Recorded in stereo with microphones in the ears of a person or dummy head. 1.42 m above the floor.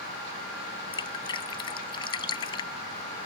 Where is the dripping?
20° left (ahead or behind).